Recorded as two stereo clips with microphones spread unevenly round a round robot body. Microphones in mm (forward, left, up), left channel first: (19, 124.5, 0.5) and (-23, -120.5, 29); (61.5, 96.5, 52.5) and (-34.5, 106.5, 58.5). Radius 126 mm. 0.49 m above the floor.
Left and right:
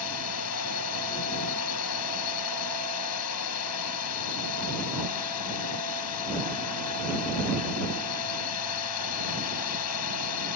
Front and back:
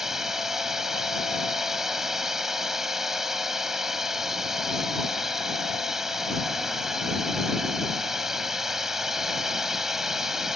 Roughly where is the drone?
Left.